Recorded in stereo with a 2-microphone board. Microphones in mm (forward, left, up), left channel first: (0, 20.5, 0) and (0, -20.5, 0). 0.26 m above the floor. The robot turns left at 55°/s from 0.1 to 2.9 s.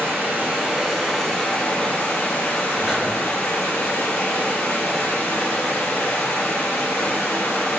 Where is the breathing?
15° right (ahead or behind), 0.9 m.